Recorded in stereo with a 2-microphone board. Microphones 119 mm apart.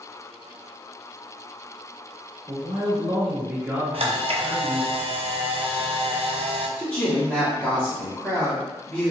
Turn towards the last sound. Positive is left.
turn(degrees=15)  # may be behind; listen again after turning